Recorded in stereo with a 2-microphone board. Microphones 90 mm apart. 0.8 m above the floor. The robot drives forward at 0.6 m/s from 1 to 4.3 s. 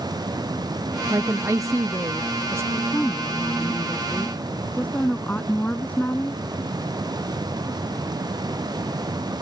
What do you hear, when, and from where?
1.1 s a woman speaking: 35° right (ahead or behind); by 2.6 s 30° right (ahead or behind)
2.7 s a woman speaking: 20° left (ahead or behind); by 6.4 s 15° left (ahead or behind)